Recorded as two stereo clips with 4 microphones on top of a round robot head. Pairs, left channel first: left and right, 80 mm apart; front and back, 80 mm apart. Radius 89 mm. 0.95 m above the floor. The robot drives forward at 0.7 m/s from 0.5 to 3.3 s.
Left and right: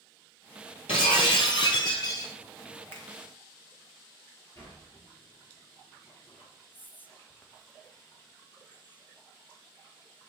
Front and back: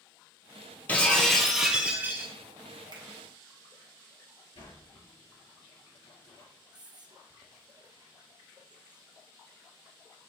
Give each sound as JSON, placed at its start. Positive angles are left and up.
{"t": 0.9, "sound": "breaking glass", "azimuth_deg": 70, "distance_m": 1.4}
{"t": 2.9, "sound": "a finger snap", "azimuth_deg": 150, "distance_m": 1.9}
{"t": 4.5, "sound": "a sliding door", "azimuth_deg": 25, "distance_m": 4.0}
{"t": 6.7, "sound": "whispering", "azimuth_deg": 155, "distance_m": 1.3}